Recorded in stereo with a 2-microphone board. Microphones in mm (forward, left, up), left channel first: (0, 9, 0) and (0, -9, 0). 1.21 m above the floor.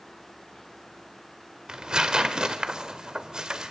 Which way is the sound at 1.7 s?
45° right (ahead or behind).